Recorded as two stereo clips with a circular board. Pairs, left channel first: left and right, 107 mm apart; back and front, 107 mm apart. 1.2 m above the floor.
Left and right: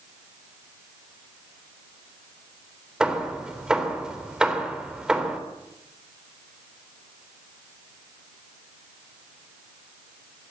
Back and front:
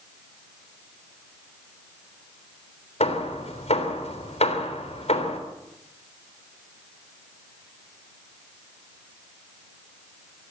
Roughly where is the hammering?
Behind.